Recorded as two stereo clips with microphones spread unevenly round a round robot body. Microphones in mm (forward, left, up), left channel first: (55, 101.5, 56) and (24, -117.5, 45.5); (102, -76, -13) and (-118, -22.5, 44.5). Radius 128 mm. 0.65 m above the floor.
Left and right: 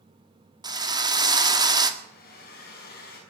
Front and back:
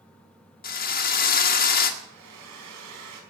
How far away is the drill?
About 1.9 m.